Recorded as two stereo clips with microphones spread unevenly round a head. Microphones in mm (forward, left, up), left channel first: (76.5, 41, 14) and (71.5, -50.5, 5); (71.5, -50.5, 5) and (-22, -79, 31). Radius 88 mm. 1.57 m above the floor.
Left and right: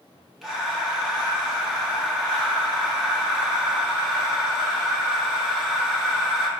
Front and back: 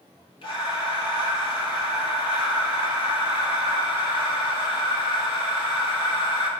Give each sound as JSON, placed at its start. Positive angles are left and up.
{"t": 0.4, "sound": "breathing", "azimuth_deg": 0, "distance_m": 1.2}